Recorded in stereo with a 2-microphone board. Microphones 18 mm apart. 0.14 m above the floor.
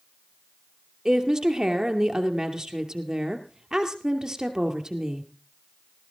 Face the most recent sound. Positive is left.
turn(degrees=-35)  # may be behind; listen again after turning